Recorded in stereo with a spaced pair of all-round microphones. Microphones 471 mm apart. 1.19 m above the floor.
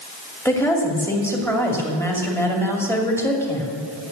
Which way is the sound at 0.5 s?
5° left (ahead or behind).